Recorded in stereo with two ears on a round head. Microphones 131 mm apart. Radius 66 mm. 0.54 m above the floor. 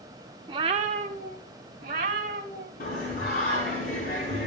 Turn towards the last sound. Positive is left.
turn(degrees=60)  # may be behind; listen again after turning